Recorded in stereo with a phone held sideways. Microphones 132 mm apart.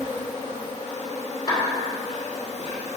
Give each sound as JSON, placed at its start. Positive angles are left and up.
{"t": 0.0, "sound": "an insect", "side_deg": 60, "distance_m": 2.0}
{"t": 1.5, "sound": "a clap", "side_deg": 35, "distance_m": 3.0}